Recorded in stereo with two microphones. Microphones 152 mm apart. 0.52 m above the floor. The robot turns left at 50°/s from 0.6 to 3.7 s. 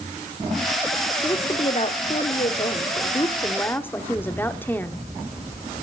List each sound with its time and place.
1.2 s a woman speaking: 145° left, 0.9 m; by 5.0 s 20° left, 0.9 m